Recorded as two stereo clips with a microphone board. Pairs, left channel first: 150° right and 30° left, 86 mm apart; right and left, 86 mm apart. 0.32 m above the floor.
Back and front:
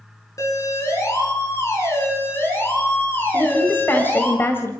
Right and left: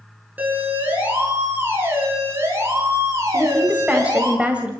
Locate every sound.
0.4 s a siren: 160° left, 5.5 m; by 4.3 s 140° left, 6 m
3.3 s a woman speaking: 160° left, 1.8 m